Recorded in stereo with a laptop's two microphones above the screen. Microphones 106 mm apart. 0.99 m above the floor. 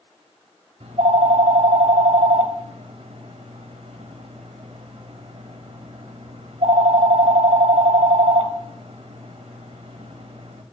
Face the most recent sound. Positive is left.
turn(degrees=-70)  # may be behind; listen again after turning